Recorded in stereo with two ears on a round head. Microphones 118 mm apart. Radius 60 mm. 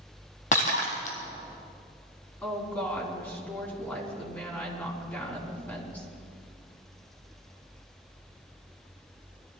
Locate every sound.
0.5 s breaking glass: 65° left (ahead or behind), 3 m
2.4 s a woman speaking: 15° left (ahead or behind), 4.5 m